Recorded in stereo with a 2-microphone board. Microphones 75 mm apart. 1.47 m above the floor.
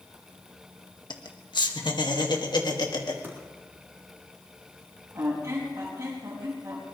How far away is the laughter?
About 1.6 m.